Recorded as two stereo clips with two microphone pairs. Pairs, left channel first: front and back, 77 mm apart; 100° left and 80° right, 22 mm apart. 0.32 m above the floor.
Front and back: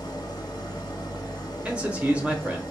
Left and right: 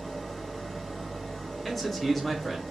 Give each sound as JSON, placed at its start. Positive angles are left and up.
{"t": 0.0, "sound": "an engine running", "azimuth_deg": 20, "distance_m": 1.2}
{"t": 1.6, "sound": "a man speaking", "azimuth_deg": 165, "distance_m": 0.8}